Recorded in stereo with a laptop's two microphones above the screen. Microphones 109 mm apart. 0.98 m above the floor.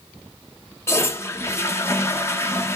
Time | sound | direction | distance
0.9 | a toilet flushing | 25° left (ahead or behind) | 0.7 m